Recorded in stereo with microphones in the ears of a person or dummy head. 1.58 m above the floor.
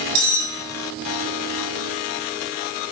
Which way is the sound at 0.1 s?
60° right (ahead or behind).